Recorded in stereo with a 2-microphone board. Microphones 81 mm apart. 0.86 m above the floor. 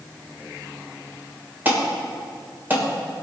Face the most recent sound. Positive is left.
turn(degrees=-25)  # may be behind; listen again after turning